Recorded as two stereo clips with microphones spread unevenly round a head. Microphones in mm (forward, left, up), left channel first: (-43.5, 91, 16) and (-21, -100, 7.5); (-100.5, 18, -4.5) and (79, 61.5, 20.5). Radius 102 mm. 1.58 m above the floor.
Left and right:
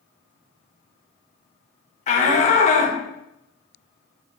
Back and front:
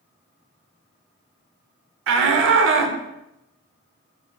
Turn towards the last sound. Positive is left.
turn(degrees=35)